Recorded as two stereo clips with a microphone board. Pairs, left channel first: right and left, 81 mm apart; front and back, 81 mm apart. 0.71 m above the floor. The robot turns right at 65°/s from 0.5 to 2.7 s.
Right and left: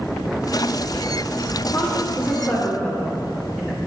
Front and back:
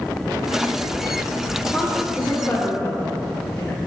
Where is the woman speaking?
85° right, 1.0 m; by 3.8 s 25° right, 1.0 m.